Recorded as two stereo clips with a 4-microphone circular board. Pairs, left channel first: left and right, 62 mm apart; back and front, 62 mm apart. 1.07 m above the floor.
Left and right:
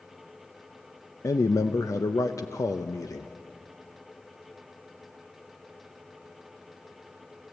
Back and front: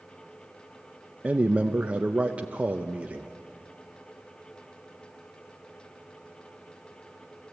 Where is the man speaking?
70° left, 0.6 m.